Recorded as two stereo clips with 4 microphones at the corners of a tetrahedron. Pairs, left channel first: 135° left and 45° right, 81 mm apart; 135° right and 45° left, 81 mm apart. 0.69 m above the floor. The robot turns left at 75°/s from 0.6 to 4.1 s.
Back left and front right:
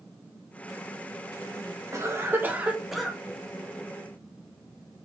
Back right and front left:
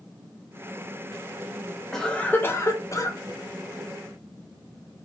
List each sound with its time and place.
1.9 s a cough: 55° right, 0.7 m; by 3.2 s 150° right, 0.7 m